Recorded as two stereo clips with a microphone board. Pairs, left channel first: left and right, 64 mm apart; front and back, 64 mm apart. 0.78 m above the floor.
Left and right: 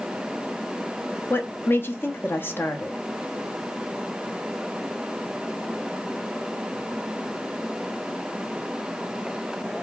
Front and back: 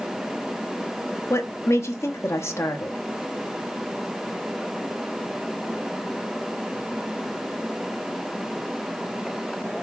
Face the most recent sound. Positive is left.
turn(degrees=40)